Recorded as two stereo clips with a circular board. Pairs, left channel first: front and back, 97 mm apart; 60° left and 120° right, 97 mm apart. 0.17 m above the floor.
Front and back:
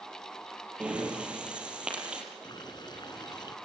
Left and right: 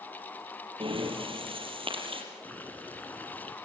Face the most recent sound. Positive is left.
turn(degrees=-10)